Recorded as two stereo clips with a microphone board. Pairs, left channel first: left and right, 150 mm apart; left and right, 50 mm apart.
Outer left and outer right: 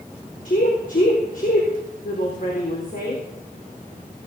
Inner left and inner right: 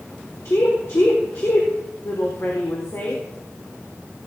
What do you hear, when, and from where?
0.5 s a woman speaking: 60° left (ahead or behind), 4 m